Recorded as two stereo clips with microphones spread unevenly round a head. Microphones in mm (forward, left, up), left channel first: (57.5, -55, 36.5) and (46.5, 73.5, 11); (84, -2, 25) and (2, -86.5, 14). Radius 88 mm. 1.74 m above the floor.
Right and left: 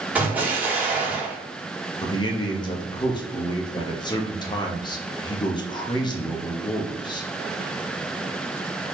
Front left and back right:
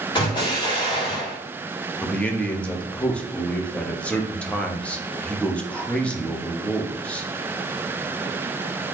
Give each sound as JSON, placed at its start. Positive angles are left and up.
{"t": 0.1, "sound": "an explosion", "azimuth_deg": 10, "distance_m": 1.9}
{"t": 2.0, "sound": "a man speaking", "azimuth_deg": -35, "distance_m": 1.0}